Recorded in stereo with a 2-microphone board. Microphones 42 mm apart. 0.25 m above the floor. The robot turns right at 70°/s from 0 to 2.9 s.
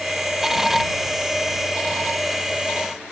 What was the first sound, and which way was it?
Only background noise.